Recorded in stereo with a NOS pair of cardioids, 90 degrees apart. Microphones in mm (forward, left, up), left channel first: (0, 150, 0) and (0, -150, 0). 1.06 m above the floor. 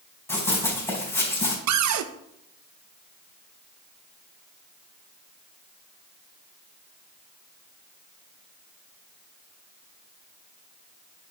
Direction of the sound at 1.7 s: 65° right.